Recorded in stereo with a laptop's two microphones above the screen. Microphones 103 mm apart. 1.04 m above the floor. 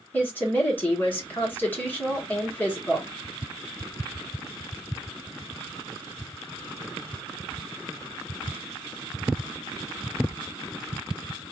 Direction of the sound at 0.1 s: 15° left (ahead or behind).